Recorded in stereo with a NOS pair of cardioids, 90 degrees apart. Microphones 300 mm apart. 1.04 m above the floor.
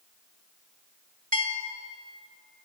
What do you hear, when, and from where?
1.3 s a bell: 25° right, 1.9 m